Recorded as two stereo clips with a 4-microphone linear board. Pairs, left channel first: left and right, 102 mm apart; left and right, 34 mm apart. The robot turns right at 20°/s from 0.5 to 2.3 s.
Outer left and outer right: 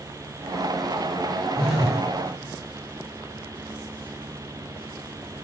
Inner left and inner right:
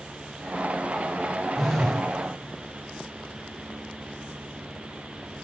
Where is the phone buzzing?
5° left (ahead or behind), 2 m; by 2.0 s centre (ahead or behind), 2 m.